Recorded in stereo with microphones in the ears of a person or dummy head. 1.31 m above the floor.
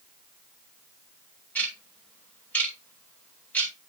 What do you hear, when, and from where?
1.6 s ticking: 10° left (ahead or behind), 2.5 m